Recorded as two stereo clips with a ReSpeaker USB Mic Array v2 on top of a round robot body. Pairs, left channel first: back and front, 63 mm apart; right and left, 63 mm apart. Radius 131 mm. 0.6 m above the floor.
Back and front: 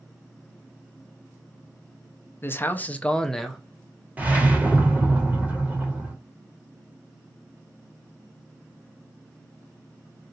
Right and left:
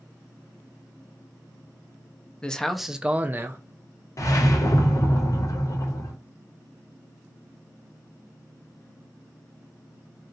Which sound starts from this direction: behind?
A man speaking, at 2.4 s.